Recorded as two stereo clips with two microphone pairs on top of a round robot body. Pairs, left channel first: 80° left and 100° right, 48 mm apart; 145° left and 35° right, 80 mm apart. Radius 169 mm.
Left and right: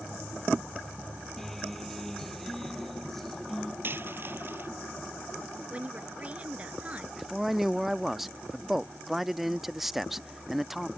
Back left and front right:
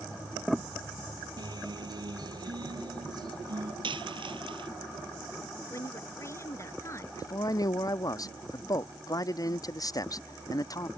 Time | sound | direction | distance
1.4 | a guitar | 5° right | ?
3.8 | a dropped coin | 55° right | ?
5.7 | a woman speaking | 160° right | ?
7.2 | a man speaking | straight behind | ?